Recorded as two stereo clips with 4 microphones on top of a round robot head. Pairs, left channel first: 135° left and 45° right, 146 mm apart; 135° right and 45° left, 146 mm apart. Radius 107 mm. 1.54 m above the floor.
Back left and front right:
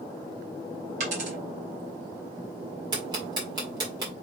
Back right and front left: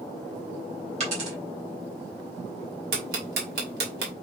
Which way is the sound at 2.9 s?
20° left.